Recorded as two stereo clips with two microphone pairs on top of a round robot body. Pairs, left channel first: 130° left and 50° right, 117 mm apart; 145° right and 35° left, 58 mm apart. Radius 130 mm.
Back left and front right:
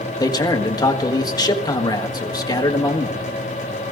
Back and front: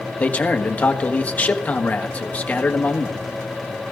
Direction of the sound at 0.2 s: 175° left.